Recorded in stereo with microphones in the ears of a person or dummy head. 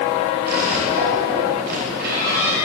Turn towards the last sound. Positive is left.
turn(degrees=-60)  # may be behind; listen again after turning